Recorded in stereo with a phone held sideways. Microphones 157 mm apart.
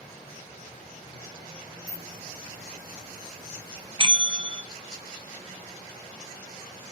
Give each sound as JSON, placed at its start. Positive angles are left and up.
{"t": 1.9, "sound": "a hiss", "side_deg": 75, "distance_m": 6.5}
{"t": 4.0, "sound": "a bell", "side_deg": -35, "distance_m": 0.7}